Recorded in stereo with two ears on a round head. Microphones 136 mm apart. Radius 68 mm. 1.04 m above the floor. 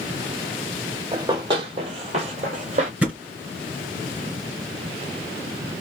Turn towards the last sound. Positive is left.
turn(degrees=-10)  # may be behind; listen again after turning